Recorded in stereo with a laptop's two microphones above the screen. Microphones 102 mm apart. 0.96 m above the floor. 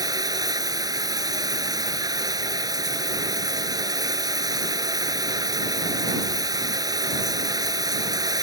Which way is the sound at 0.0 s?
40° right (ahead or behind).